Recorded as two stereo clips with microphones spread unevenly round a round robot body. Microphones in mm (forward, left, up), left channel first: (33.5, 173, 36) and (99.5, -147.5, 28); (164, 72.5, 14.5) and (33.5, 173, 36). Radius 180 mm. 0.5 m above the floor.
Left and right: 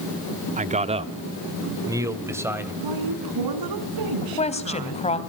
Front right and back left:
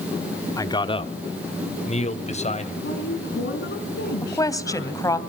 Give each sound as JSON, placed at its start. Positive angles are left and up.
{"t": 0.6, "sound": "a man speaking", "azimuth_deg": -45, "distance_m": 1.2}
{"t": 2.8, "sound": "a woman speaking", "azimuth_deg": -70, "distance_m": 4.5}
{"t": 4.2, "sound": "a woman speaking", "azimuth_deg": 30, "distance_m": 3.0}